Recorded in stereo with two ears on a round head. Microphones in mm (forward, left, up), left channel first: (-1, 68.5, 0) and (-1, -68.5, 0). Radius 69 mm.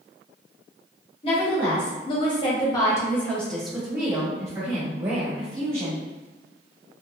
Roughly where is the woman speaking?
Left.